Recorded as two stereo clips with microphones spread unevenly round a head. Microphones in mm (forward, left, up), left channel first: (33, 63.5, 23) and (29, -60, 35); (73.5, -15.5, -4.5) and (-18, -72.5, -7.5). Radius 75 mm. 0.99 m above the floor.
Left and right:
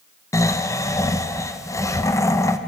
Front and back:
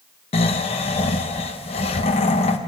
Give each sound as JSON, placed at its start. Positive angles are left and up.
{"t": 0.3, "sound": "snoring", "azimuth_deg": 35, "distance_m": 0.9}